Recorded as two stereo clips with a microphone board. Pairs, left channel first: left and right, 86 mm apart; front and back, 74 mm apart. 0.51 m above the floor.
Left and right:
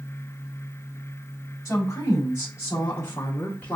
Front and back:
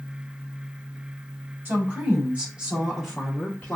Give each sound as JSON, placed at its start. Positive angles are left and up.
{"t": 1.6, "sound": "a woman speaking", "azimuth_deg": 135, "distance_m": 1.5}